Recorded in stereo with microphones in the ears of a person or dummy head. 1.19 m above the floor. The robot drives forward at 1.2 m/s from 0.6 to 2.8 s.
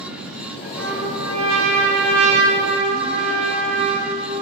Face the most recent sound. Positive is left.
turn(degrees=-35)  # may be behind; listen again after turning